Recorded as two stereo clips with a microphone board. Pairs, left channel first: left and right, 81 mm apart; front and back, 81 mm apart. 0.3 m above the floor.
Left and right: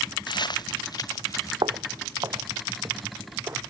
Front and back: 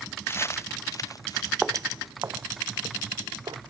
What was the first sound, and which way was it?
Footsteps, 60° left.